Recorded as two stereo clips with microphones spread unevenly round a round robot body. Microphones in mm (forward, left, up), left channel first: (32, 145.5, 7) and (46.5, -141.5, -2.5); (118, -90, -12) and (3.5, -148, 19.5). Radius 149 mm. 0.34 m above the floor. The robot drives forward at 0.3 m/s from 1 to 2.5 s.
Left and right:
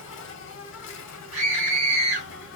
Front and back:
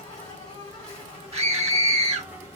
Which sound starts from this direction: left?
An insect, at 0.0 s.